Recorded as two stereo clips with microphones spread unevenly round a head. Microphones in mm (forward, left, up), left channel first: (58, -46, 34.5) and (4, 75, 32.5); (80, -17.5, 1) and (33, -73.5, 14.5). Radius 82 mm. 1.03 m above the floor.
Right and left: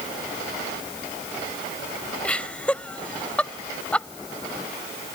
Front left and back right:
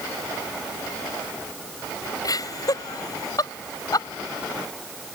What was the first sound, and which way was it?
Laughter, 15° left.